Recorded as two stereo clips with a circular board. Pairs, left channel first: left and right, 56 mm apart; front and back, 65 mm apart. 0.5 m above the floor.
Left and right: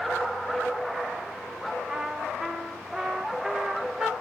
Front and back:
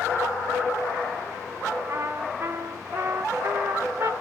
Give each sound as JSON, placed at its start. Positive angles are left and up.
{"t": 1.9, "sound": "a trumpet", "azimuth_deg": -165, "distance_m": 0.8}